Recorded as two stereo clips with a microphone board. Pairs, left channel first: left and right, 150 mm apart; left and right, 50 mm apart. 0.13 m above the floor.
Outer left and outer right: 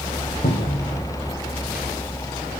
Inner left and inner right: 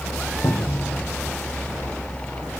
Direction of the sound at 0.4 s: 75° left (ahead or behind).